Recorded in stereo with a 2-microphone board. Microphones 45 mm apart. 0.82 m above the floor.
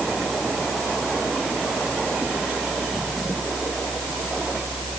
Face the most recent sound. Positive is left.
No sound to turn to.